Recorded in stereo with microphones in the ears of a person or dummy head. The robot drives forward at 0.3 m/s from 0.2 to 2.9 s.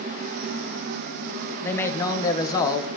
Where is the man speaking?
15° left (ahead or behind), 1.0 m; by 2.9 s 20° left (ahead or behind), 0.6 m.